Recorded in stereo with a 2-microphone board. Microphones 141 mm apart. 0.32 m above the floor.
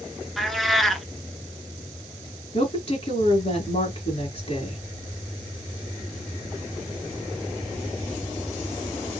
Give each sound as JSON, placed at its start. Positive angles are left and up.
{"t": 0.4, "sound": "a cat meowing", "side_deg": 0, "distance_m": 0.5}
{"t": 2.5, "sound": "a woman speaking", "side_deg": 45, "distance_m": 2.5}